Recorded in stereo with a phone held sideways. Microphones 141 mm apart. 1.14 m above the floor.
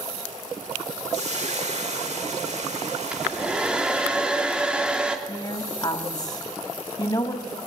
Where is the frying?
55° right (ahead or behind), 3 m.